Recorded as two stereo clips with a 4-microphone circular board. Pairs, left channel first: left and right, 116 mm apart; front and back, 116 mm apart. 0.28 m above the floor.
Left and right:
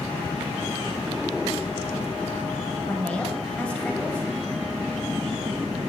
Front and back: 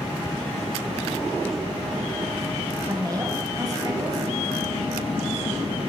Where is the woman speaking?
160° left, 1.2 m.